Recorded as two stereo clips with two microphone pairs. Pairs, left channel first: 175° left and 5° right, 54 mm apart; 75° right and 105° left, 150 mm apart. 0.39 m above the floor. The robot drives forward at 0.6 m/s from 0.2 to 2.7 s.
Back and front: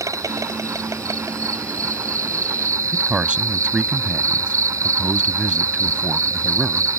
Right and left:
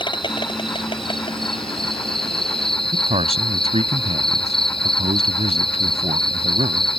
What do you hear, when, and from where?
0.0 s an insect: 20° right
2.9 s a man speaking: 65° left